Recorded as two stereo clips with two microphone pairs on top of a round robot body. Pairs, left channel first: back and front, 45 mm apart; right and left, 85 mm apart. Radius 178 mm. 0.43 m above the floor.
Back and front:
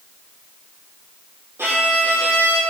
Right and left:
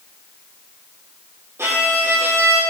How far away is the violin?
About 5.5 m.